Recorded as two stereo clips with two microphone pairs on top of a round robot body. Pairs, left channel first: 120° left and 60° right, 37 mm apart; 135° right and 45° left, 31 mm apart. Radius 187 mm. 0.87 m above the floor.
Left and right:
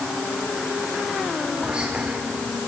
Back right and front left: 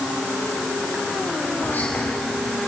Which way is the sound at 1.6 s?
120° right.